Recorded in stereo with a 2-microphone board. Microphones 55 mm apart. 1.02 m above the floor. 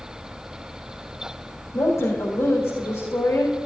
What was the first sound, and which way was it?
A woman speaking, 70° left (ahead or behind).